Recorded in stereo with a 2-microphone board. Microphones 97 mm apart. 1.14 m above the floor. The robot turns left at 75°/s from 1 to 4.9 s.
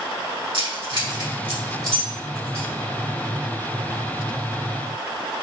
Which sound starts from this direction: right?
Keys jangling, at 0.5 s.